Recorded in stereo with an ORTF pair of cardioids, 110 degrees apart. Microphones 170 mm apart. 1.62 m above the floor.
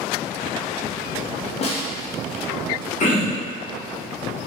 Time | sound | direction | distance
1.6 | a snare drum | 40° left | 0.6 m
3.0 | throat clearing | 45° left | 1.1 m